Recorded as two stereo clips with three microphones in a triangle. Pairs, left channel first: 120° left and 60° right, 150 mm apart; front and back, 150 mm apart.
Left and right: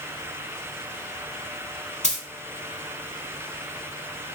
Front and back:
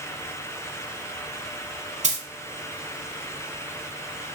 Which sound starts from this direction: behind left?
A dropped coin, at 2.0 s.